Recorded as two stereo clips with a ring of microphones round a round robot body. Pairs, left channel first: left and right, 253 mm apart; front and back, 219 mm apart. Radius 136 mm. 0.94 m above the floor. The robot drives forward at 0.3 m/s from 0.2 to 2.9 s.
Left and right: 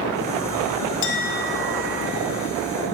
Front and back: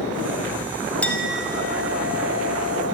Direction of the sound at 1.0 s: 85° left.